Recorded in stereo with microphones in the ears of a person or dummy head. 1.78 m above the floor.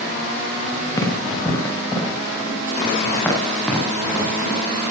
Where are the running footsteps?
20° left (ahead or behind), 6 m; by 4.6 s centre (ahead or behind), 9.5 m.